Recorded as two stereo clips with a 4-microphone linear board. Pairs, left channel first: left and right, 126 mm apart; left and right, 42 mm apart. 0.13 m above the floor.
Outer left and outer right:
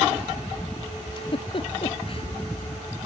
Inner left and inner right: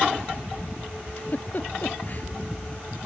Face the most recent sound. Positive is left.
turn(degrees=45)  # may be behind; listen again after turning